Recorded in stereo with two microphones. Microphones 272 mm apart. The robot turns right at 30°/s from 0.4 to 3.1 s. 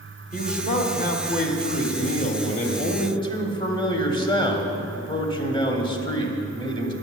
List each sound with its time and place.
0.3 s a man speaking: 65° left, 1.3 m; by 6.9 s 145° left, 1.3 m